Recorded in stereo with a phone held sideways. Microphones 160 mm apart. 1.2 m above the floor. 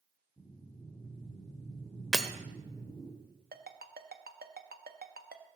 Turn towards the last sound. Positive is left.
turn(degrees=-70)  # may be behind; listen again after turning